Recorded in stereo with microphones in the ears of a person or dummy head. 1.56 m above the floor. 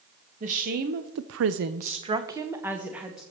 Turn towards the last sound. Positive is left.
turn(degrees=-5)  # may be behind; listen again after turning